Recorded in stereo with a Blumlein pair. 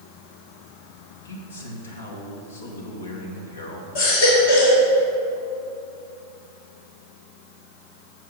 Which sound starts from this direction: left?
A man speaking, at 1.2 s.